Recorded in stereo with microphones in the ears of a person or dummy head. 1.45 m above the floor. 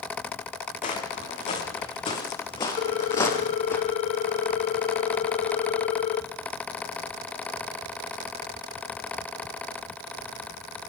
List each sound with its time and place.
0.8 s footsteps: 40° left (ahead or behind), 6 m; by 3.8 s 15° left (ahead or behind), 4 m
2.8 s a ringtone: 40° left (ahead or behind), 1.2 m